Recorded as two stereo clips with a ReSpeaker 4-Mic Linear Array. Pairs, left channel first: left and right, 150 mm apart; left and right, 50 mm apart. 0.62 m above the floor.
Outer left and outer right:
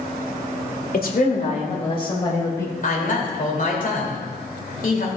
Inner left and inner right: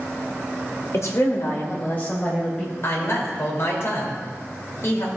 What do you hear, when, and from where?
0.9 s a woman speaking: 65° left (ahead or behind), 2.0 m; by 2.7 s 15° left (ahead or behind), 3 m
2.8 s a woman speaking: 55° left (ahead or behind), 2.5 m